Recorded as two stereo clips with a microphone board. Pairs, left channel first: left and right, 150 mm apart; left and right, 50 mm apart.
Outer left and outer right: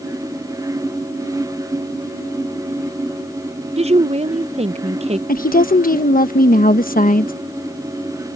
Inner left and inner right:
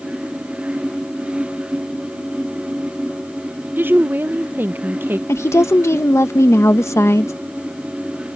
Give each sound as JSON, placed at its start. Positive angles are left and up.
{"t": 3.8, "sound": "a woman speaking", "side_deg": -45}
{"t": 5.3, "sound": "a woman speaking", "side_deg": 70}